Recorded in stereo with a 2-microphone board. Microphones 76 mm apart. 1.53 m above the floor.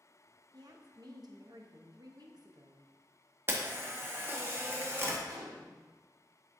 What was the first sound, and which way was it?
A woman speaking, 55° right (ahead or behind).